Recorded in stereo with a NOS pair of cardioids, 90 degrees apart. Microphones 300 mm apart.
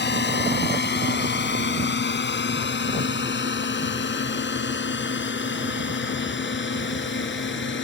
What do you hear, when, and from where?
0.0 s a drone: 35° left; by 7.8 s 40° left